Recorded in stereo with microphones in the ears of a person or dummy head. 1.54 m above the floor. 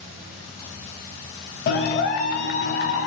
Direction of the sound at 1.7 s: 45° left (ahead or behind).